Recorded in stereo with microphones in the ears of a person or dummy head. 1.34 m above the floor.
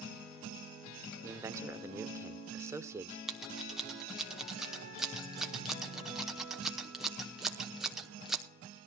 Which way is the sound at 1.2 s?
15° right (ahead or behind).